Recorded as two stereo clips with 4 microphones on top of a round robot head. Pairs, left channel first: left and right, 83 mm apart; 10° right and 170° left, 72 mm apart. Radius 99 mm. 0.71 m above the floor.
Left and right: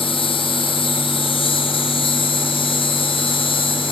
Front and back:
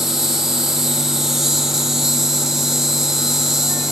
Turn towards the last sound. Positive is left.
turn(degrees=80)